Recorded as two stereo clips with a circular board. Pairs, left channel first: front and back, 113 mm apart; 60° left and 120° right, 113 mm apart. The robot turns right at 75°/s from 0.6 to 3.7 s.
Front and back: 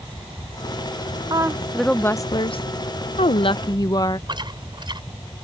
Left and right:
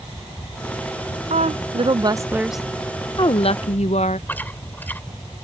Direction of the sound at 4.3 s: 135° left.